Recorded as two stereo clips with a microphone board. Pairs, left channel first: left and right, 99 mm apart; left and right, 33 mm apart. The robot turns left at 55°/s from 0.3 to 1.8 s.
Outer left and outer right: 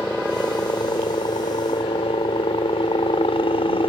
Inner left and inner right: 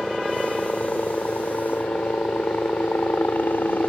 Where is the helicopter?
155° left; by 3.9 s 75° left.